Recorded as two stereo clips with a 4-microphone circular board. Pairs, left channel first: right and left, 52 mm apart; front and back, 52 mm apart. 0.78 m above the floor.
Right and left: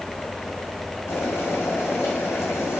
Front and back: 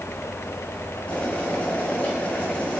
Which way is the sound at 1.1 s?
65° right.